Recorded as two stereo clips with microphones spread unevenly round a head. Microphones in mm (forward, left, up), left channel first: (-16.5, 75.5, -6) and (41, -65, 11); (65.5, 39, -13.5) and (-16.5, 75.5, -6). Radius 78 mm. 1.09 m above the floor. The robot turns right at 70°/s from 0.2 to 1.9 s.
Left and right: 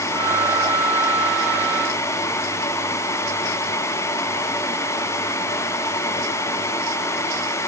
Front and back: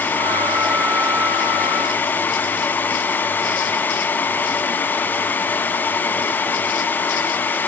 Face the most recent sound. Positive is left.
No sound to turn to.